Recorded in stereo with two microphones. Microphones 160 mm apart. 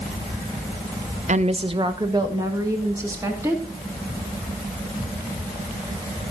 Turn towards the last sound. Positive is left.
turn(degrees=-15)  # may be behind; listen again after turning